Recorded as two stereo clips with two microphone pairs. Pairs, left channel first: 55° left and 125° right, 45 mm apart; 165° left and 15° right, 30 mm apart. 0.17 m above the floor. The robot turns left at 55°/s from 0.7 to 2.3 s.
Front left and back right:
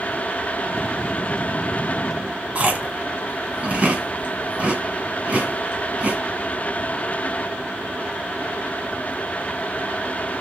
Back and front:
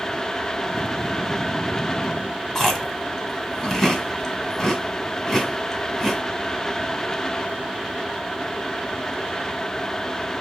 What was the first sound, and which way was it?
Chewing, 115° right.